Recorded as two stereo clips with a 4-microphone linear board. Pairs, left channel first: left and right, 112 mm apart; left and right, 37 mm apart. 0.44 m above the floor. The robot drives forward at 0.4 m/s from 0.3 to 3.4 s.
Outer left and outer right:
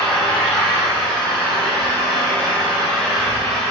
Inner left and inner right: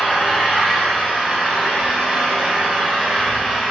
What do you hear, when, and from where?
0.0 s an engine running: 10° left (ahead or behind), 4.5 m; by 3.7 s 5° left (ahead or behind), 6 m